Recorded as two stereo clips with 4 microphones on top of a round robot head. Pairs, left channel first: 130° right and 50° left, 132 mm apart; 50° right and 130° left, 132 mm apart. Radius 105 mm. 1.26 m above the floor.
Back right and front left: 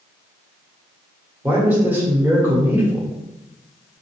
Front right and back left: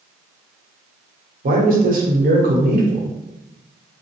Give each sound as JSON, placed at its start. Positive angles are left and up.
{"t": 1.4, "sound": "a man speaking", "azimuth_deg": 125, "distance_m": 0.9}